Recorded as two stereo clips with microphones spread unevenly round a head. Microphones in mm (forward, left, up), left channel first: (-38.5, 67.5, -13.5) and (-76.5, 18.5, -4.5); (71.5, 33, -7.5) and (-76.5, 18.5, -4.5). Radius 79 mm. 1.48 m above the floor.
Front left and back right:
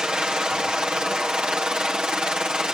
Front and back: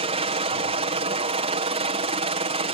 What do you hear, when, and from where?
0.0 s a helicopter: 155° left